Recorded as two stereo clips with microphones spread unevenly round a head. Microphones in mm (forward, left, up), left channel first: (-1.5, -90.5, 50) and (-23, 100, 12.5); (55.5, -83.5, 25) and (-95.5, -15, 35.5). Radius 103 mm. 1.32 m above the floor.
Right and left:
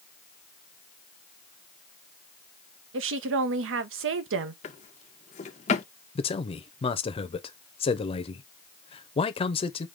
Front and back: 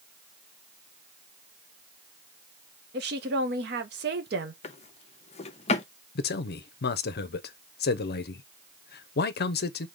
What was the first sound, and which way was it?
A woman speaking, 115° left.